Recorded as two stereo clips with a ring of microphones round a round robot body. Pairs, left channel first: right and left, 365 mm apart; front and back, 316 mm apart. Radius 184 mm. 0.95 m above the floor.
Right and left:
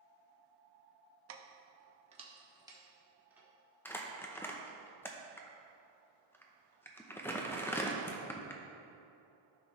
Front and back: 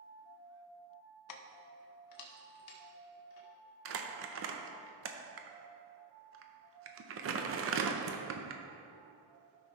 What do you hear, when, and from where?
1.3 s keys jangling: 35° left, 0.7 m; by 3.5 s 5° left, 1.7 m
3.9 s crumpling: 170° right, 0.7 m